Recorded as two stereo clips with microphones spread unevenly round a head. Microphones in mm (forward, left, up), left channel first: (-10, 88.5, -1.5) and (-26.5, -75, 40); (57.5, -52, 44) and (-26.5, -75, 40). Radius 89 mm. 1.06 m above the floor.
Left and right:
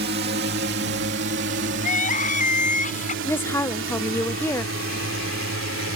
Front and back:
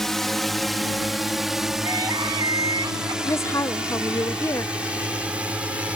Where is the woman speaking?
50° left.